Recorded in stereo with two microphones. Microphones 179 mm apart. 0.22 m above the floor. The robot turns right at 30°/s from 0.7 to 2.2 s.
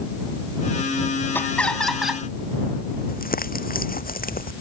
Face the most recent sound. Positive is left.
turn(degrees=55)  # may be behind; listen again after turning